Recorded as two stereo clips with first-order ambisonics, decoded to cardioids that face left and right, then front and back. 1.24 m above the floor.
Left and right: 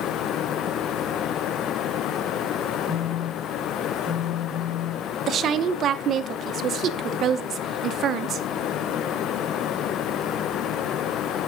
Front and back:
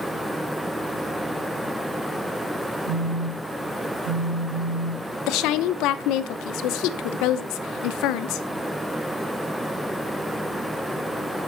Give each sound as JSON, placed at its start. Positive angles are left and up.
{"t": 2.9, "sound": "a phone buzzing", "azimuth_deg": -170, "distance_m": 7.0}
{"t": 5.3, "sound": "a woman speaking", "azimuth_deg": -30, "distance_m": 0.7}